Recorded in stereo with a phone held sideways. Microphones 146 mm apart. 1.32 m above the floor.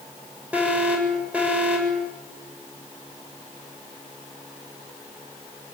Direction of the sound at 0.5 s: 10° right (ahead or behind).